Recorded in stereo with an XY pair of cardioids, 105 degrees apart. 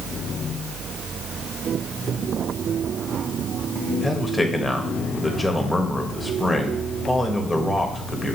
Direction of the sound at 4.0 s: 10° left.